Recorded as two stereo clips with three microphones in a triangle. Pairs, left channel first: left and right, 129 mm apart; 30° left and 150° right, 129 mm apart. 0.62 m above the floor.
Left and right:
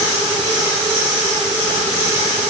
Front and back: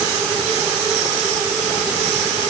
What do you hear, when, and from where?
Only background noise.